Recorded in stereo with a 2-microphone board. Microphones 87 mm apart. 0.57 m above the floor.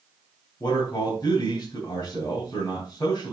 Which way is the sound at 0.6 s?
50° left (ahead or behind).